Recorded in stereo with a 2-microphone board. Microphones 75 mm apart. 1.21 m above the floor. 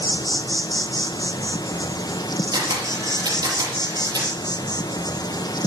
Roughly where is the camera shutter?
Right.